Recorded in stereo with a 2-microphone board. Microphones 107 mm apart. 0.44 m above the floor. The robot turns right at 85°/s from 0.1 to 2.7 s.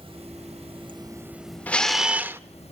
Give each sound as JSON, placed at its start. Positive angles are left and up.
{"t": 0.0, "sound": "running water", "azimuth_deg": -120, "distance_m": 1.2}
{"t": 1.7, "sound": "a camera shutter", "azimuth_deg": 155, "distance_m": 0.7}